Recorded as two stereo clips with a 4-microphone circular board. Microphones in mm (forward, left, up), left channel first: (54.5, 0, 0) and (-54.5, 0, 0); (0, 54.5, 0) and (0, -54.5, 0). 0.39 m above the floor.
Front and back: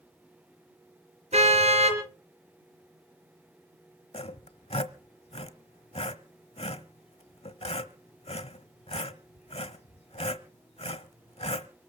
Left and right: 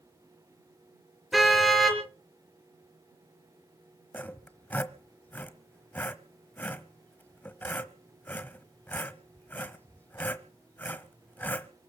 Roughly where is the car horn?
Behind.